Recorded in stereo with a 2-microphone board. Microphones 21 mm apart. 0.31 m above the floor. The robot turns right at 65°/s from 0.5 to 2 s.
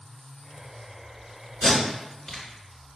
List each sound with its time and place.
1.6 s tape being pulled: 20° left (ahead or behind), 1.8 m; by 2.4 s 35° left (ahead or behind), 1.8 m